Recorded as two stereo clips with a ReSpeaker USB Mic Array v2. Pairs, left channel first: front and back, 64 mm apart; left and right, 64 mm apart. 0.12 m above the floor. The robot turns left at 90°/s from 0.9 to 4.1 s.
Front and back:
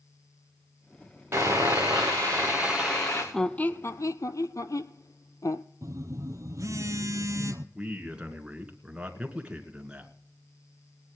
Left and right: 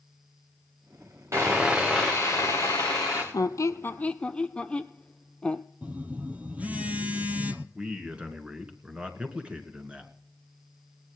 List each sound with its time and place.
1.3 s sawing: 130° right, 4 m; by 3.2 s 55° left, 4 m
3.3 s a squeak: 85° left, 0.6 m; by 5.6 s 20° left, 0.6 m
5.8 s a phone buzzing: 155° right, 0.8 m
7.8 s a man speaking: 135° right, 1.8 m